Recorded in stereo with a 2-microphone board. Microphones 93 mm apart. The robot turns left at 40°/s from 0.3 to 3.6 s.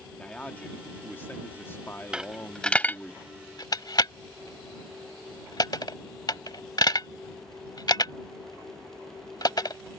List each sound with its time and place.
0.2 s a man speaking: 10° left (ahead or behind); by 3.1 s 15° left (ahead or behind)
2.1 s a dropped coin: 10° right (ahead or behind); by 9.8 s 45° left (ahead or behind)